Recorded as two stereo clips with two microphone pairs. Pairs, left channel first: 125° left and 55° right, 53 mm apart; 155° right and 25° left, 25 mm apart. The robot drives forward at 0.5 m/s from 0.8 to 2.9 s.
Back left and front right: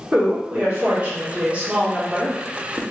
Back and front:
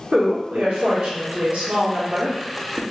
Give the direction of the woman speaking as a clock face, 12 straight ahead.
12 o'clock.